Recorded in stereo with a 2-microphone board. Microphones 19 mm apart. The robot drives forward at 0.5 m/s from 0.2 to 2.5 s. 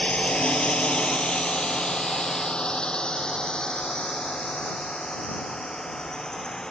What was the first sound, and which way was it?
A drone, 70° left (ahead or behind).